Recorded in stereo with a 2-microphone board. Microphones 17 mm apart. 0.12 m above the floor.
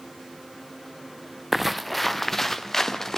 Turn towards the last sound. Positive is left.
turn(degrees=35)  # may be behind; listen again after turning